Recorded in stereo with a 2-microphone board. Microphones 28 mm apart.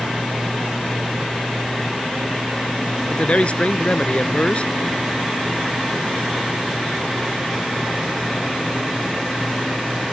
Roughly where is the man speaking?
Left.